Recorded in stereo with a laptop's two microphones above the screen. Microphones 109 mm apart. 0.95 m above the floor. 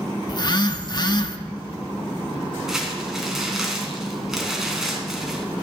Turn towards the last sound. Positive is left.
turn(degrees=-5)  # may be behind; listen again after turning